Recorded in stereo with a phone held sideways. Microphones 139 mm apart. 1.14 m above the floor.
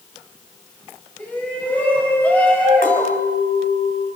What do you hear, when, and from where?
1.2 s a shout: 10° left (ahead or behind), 6.5 m; by 3.2 s 15° left (ahead or behind), 5 m
2.8 s a clink: 85° left, 4 m